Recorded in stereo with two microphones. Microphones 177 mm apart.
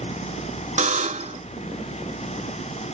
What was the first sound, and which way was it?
A buzzer, 45° right (ahead or behind).